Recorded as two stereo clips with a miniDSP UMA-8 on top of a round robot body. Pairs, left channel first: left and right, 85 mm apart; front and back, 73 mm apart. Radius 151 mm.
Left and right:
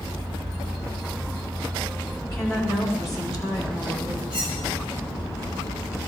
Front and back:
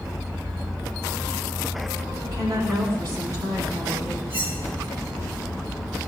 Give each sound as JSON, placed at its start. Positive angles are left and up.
{"t": 2.2, "sound": "a woman speaking", "azimuth_deg": 140, "distance_m": 8.0}
{"t": 4.3, "sound": "cutlery clinking", "azimuth_deg": 120, "distance_m": 8.0}